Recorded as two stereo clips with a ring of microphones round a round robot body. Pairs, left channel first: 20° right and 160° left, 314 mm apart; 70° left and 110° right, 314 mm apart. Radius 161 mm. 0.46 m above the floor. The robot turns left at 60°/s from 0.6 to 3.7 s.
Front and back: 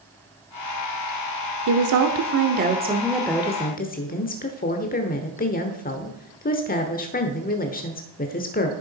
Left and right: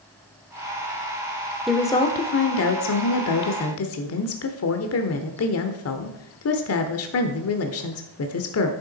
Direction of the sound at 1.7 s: 160° left.